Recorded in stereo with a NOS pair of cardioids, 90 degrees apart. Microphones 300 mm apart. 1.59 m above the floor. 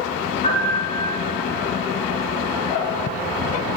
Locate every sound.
0.4 s a piano: 25° left, 4 m